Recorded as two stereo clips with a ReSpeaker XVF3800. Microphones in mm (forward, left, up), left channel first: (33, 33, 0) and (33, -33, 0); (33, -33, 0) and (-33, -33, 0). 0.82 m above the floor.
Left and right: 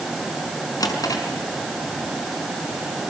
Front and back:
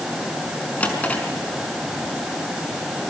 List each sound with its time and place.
0.8 s a drawer: 70° left, 5 m